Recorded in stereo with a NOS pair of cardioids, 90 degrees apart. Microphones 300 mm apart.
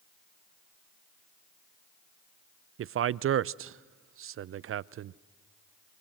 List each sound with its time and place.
2.8 s a man speaking: 45° right, 0.6 m